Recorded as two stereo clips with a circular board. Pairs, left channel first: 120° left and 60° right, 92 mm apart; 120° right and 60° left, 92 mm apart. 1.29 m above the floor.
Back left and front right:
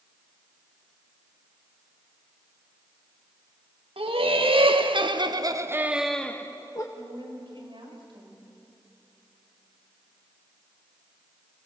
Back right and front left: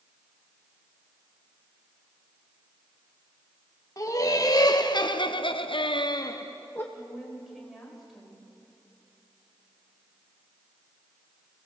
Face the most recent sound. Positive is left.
turn(degrees=-30)